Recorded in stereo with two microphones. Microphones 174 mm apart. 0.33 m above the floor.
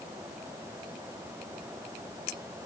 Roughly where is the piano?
I don't hear a piano.